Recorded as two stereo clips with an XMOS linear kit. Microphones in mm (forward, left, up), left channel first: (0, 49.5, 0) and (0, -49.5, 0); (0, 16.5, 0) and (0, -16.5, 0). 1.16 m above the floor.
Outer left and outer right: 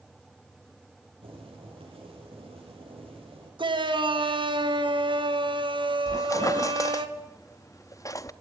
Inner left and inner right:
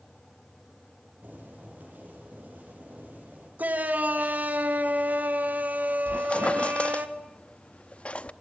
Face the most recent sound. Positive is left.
turn(degrees=35)  # may be behind; listen again after turning